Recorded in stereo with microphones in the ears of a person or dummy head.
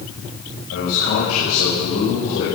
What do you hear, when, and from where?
0.7 s a man speaking: 75° left (ahead or behind), 9.5 m; by 2.5 s 80° left, 8.5 m